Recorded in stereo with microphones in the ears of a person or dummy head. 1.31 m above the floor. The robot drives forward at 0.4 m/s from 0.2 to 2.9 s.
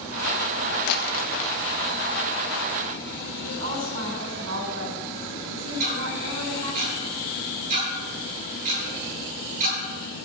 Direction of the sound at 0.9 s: 50° left (ahead or behind).